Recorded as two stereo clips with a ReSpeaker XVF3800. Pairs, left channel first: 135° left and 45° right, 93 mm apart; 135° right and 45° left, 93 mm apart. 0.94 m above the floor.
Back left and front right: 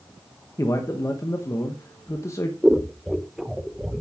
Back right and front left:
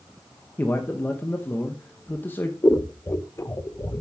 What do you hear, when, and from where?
0.6 s a man speaking: 170° left, 1.0 m
2.6 s scissors: 125° right, 0.8 m